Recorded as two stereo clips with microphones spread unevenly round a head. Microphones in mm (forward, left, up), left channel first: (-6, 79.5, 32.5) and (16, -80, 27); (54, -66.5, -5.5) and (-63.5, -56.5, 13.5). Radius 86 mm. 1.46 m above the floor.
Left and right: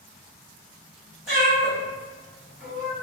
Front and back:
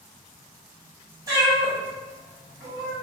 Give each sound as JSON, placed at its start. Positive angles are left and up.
{"t": 1.3, "sound": "a cat meowing", "azimuth_deg": -170, "distance_m": 1.0}